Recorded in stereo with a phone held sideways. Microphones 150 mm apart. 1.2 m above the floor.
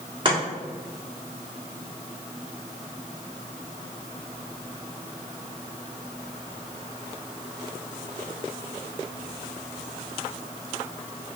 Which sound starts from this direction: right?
Chopping, at 0.2 s.